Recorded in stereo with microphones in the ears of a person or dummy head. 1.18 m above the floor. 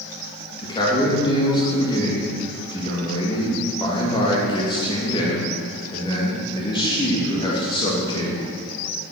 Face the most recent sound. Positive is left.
turn(degrees=20)  # may be behind; listen again after turning